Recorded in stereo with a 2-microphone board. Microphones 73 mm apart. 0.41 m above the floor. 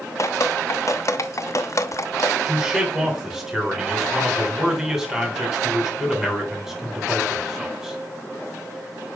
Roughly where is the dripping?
Left.